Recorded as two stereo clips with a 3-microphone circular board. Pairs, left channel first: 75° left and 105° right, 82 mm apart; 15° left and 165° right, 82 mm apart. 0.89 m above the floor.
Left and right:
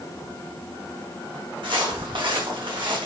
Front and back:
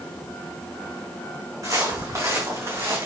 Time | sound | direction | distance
1.6 | footsteps | 115° right | 4 m